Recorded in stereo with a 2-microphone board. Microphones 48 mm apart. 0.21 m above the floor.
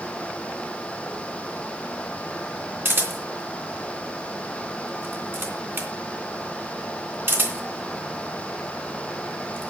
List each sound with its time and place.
2.9 s a camera shutter: 50° right (ahead or behind), 2.5 m